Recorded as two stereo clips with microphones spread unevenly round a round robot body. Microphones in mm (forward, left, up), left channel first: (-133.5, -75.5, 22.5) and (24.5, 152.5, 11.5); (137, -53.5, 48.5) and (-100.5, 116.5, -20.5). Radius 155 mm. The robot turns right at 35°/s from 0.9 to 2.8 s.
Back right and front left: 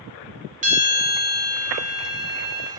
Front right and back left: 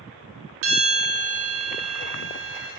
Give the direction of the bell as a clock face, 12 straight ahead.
8 o'clock.